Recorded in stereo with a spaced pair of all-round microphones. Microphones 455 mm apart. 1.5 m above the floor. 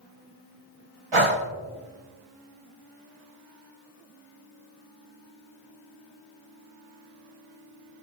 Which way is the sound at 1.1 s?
75° right (ahead or behind).